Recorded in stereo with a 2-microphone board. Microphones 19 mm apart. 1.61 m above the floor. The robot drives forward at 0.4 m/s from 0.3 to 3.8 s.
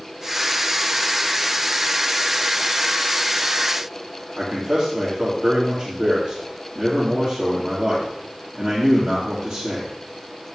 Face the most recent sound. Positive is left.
turn(degrees=-20)  # may be behind; listen again after turning